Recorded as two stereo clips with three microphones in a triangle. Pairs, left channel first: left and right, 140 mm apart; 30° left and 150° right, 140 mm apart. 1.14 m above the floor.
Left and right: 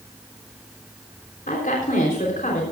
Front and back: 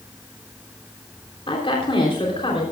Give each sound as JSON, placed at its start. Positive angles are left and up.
{"t": 1.5, "sound": "a woman speaking", "azimuth_deg": 80, "distance_m": 3.5}